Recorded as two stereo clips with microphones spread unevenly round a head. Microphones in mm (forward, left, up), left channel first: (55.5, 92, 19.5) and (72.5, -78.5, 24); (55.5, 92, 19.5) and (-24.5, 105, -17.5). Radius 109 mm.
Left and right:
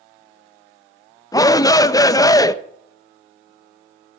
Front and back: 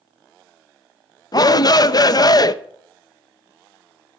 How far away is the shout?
About 0.8 m.